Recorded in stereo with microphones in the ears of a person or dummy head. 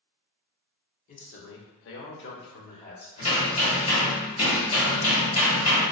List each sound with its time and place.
1.1 s a man speaking: 40° left (ahead or behind), 0.6 m; by 3.1 s 45° left (ahead or behind), 1.1 m
3.2 s hammering: 35° left (ahead or behind), 1.3 m